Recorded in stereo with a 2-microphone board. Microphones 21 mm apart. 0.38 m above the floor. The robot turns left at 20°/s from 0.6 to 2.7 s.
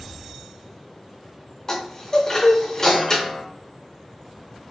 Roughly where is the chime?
Left.